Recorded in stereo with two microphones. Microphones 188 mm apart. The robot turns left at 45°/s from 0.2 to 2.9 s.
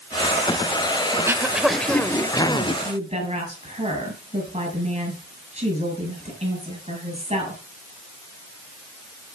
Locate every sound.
1.1 s throat clearing: 155° right, 0.7 m; by 2.7 s 135° left, 0.7 m
2.8 s a woman speaking: 35° right (ahead or behind), 6.5 m